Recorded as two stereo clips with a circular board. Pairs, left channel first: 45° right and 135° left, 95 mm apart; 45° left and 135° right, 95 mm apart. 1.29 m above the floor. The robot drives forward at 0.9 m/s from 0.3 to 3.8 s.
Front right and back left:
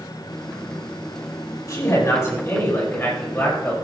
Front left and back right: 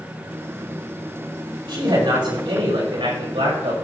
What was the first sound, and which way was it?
A man speaking, 100° right.